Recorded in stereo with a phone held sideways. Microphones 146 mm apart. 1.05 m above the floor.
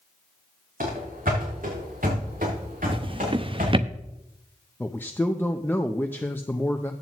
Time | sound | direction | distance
0.8 | running footsteps | 70° right (ahead or behind) | 3.5 m
2.9 | a drawer | 40° right (ahead or behind) | 0.5 m
4.8 | a man speaking | 15° left (ahead or behind) | 0.6 m